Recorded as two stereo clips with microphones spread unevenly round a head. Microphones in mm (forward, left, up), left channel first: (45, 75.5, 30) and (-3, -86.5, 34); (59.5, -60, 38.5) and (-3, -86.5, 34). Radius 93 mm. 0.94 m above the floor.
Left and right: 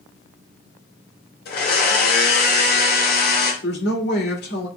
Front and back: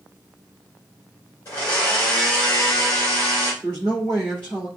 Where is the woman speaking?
100° left, 1.7 m.